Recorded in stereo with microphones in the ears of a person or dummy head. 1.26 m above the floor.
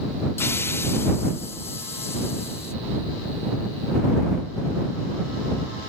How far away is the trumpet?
No trumpet in this recording.